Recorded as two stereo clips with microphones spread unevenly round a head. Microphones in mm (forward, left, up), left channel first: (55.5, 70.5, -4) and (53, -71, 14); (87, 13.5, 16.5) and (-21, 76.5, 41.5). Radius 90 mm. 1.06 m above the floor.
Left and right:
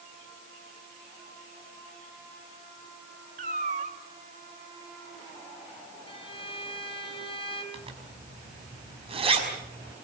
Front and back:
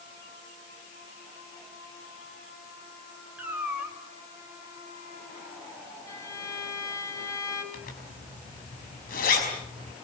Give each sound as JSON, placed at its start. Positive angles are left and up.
{"t": 3.4, "sound": "a cat meowing", "azimuth_deg": -135, "distance_m": 1.5}
{"t": 6.1, "sound": "a violin", "azimuth_deg": 35, "distance_m": 4.5}
{"t": 7.7, "sound": "a zipper", "azimuth_deg": -40, "distance_m": 5.5}